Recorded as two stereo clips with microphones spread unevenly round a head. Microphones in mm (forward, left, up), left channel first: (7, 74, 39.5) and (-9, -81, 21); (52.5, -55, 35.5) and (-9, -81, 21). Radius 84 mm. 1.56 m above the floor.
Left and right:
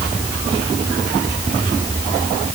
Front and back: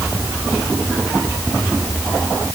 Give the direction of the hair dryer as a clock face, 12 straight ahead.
I don't hear a hair dryer.